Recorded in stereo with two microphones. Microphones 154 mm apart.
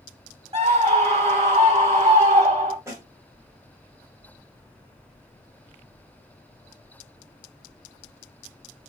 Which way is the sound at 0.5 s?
40° right (ahead or behind).